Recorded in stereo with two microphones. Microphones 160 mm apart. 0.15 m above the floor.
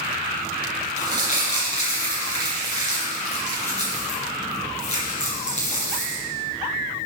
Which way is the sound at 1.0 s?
45° left (ahead or behind).